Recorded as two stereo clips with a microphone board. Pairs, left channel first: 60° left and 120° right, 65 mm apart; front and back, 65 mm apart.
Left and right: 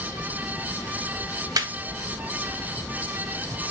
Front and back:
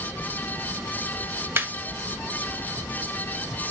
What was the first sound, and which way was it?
Laughter, 125° right.